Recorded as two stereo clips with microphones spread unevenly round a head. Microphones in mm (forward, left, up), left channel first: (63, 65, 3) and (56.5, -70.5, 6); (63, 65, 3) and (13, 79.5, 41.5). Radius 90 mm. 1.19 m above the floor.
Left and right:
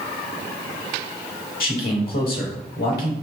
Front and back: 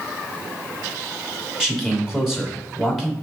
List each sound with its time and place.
1.6 s a man speaking: 80° left, 3 m